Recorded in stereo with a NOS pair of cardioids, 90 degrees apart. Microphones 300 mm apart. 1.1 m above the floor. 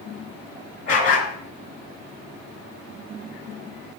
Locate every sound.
0.9 s a dog barking: 50° left, 3.5 m